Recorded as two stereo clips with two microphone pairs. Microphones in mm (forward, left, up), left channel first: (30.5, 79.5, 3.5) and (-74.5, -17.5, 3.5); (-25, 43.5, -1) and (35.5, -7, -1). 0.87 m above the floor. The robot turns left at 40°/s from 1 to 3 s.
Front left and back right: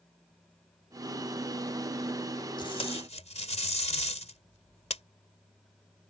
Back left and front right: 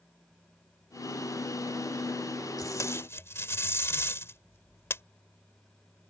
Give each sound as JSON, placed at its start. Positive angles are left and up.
{"t": 2.6, "sound": "tape being pulled", "azimuth_deg": 100}